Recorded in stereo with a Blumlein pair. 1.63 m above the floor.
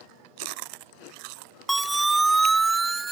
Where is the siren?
5° right; by 3.1 s 15° right.